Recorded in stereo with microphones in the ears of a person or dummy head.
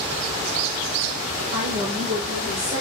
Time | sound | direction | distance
1.5 | a woman speaking | 50° right (ahead or behind) | 2.0 m